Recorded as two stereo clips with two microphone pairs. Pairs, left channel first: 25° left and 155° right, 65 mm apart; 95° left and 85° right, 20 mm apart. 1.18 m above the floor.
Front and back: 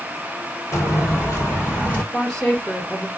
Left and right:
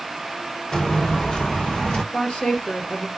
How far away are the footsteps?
About 2.0 m.